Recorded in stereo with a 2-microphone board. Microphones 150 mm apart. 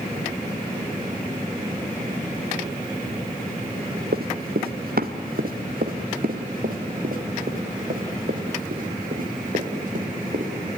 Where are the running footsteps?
85° right, 1.4 m; by 10.5 s 65° right (ahead or behind), 5 m.